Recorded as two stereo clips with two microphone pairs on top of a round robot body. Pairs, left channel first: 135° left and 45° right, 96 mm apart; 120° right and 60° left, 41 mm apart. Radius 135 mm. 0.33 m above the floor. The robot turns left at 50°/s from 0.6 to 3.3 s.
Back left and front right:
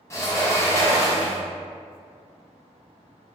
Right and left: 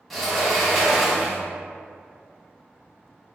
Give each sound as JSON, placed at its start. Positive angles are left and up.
{"t": 0.1, "sound": "a sliding door", "azimuth_deg": 165, "distance_m": 0.9}